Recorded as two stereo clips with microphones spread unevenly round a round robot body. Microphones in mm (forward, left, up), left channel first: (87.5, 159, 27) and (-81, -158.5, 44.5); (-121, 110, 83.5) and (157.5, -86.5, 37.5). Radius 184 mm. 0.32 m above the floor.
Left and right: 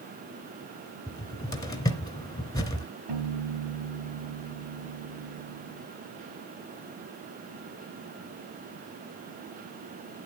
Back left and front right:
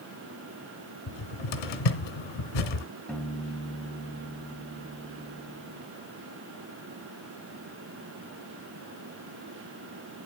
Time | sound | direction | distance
1.1 | a cupboard door | 145° left | 2.5 m
3.1 | a piano | 125° right | 3 m